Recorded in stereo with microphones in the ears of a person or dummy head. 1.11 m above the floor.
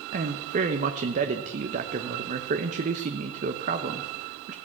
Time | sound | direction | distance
0.1 | a man speaking | 45° right (ahead or behind) | 0.9 m